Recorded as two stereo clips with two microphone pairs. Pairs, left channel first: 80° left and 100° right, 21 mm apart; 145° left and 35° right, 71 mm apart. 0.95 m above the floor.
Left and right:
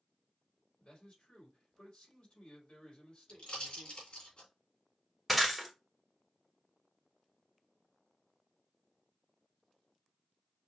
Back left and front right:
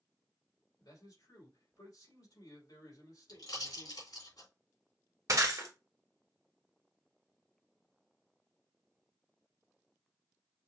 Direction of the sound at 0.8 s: 115° left.